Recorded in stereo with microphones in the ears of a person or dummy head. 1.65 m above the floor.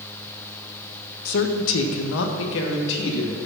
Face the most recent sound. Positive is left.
turn(degrees=65)  # may be behind; listen again after turning